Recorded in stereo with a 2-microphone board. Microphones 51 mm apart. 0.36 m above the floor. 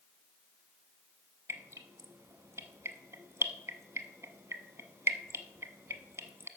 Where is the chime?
I don't hear a chime.